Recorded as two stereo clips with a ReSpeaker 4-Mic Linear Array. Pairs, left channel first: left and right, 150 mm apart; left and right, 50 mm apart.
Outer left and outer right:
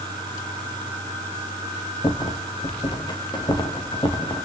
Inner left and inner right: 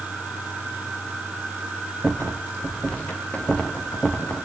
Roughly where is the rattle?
Left.